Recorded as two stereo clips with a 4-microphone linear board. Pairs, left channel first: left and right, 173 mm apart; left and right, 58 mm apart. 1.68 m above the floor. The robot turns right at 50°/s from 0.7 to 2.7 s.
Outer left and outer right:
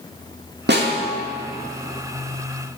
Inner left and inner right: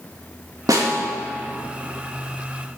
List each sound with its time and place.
0.7 s a snare drum: 80° right, 2.5 m; by 1.0 s 75° right (ahead or behind), 2.5 m